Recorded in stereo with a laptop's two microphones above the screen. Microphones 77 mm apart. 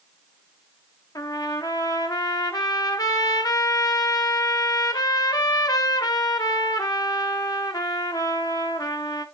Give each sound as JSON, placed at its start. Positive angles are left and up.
{"t": 1.1, "sound": "a trumpet", "side_deg": 55, "distance_m": 1.3}